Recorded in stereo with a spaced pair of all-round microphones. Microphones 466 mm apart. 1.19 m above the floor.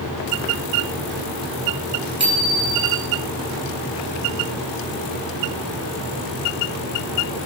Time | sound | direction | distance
2.2 | a bicycle bell | 85° right | 9 m